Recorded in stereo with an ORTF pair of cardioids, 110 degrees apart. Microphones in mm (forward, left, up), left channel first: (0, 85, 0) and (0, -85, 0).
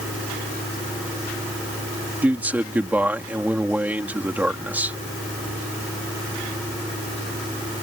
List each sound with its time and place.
0.0 s a fan: 10° right
2.2 s a man speaking: 10° right